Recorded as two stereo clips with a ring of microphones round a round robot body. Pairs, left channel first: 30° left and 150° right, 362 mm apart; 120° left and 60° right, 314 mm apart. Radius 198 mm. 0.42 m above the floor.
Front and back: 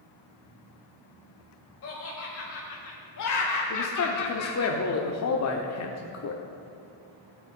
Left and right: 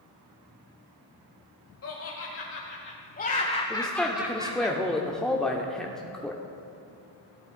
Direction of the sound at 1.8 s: 80° left.